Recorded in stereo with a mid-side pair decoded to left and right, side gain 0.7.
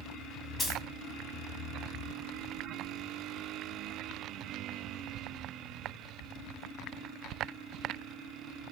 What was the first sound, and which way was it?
A dropped coin, 20° left.